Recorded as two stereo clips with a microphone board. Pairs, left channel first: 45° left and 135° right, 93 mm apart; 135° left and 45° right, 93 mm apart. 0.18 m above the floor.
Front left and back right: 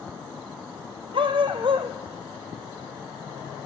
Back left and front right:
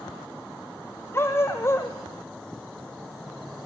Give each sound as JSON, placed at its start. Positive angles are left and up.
{"t": 1.1, "sound": "a dog barking", "azimuth_deg": -160, "distance_m": 2.0}